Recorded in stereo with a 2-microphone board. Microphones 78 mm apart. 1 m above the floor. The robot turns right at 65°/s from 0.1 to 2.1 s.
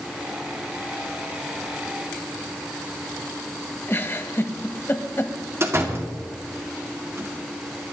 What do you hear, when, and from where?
3.9 s a giggle: 30° left (ahead or behind), 1.3 m
5.6 s a door slam: 35° right (ahead or behind), 2 m